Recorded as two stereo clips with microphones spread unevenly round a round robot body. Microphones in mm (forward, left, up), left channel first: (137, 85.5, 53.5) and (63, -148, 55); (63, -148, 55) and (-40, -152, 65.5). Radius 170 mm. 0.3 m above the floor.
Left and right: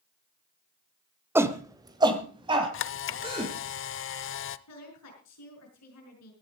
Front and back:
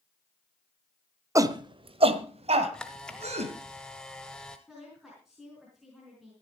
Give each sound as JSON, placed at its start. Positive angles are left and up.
{"t": 1.4, "sound": "a shout", "azimuth_deg": -175, "distance_m": 1.0}
{"t": 2.7, "sound": "a camera shutter", "azimuth_deg": 80, "distance_m": 0.6}
{"t": 4.7, "sound": "a woman speaking", "azimuth_deg": 95, "distance_m": 5.5}